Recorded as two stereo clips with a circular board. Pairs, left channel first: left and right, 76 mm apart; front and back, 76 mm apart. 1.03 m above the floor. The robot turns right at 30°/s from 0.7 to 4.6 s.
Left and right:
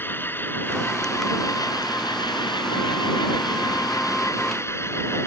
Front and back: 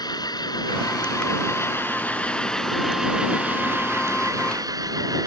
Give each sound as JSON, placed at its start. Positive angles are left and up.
{"t": 0.0, "sound": "an engine running", "azimuth_deg": 30}